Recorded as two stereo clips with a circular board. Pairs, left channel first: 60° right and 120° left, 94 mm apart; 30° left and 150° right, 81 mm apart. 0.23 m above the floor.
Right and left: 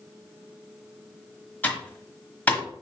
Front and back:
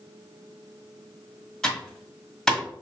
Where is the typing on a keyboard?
30° right, 1.2 m.